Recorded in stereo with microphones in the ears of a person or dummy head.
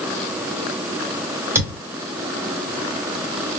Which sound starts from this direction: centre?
A thud, at 1.6 s.